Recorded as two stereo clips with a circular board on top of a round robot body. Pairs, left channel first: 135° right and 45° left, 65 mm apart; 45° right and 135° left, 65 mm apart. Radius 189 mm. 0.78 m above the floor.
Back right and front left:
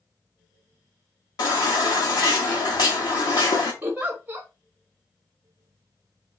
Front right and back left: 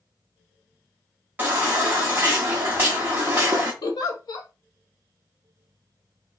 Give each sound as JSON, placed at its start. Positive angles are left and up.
{"t": 1.4, "sound": "a baby crying", "azimuth_deg": -160, "distance_m": 0.5}
{"t": 3.8, "sound": "a giggle", "azimuth_deg": -25, "distance_m": 0.6}